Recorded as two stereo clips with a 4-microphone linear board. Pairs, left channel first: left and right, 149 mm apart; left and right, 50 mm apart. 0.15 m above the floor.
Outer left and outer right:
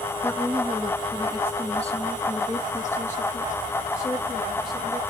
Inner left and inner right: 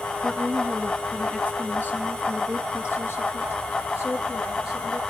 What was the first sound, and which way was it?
A woman speaking, 15° left (ahead or behind).